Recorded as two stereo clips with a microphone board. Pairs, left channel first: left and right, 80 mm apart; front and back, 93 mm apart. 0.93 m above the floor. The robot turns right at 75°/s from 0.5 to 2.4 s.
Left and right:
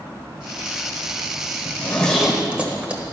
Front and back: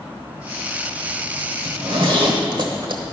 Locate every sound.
1.6 s a zipper: 140° left, 1.2 m; by 3.0 s 165° right, 1.2 m